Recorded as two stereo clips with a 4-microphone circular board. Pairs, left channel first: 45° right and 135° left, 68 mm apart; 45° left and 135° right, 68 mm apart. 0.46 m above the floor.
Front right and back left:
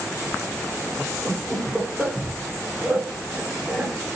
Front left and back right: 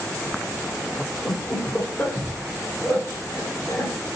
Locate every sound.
1.2 s laughter: 75° left, 0.9 m